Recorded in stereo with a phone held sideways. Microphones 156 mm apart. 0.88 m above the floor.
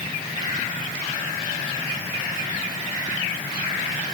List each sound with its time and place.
Only background noise.